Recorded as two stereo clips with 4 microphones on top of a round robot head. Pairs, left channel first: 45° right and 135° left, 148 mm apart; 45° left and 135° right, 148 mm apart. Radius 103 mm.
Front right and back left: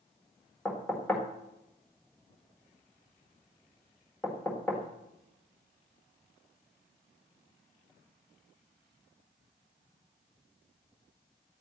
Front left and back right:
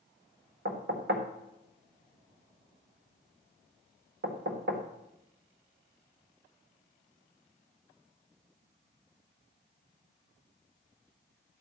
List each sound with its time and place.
0.7 s knocking: 125° right, 1.6 m